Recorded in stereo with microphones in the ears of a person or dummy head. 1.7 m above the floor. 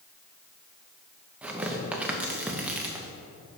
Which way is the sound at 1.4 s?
15° right (ahead or behind).